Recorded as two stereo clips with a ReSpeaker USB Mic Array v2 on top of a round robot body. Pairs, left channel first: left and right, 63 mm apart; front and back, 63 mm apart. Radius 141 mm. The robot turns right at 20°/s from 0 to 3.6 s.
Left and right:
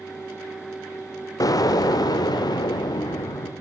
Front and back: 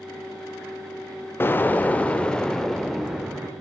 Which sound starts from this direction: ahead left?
An explosion, at 1.4 s.